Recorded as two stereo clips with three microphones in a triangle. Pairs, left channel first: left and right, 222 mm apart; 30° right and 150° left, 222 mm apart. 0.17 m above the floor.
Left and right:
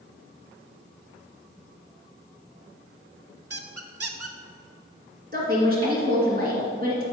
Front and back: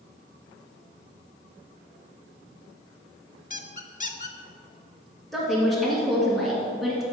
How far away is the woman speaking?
About 2.5 m.